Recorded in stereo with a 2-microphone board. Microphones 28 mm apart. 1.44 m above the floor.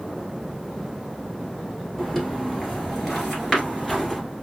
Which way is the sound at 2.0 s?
5° left (ahead or behind).